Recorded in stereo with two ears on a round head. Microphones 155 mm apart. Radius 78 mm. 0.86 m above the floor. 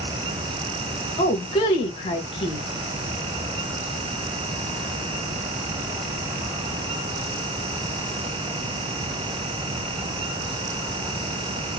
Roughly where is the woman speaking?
Left.